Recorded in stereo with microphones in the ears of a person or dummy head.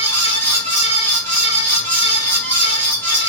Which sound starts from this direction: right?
A fan, at 0.0 s.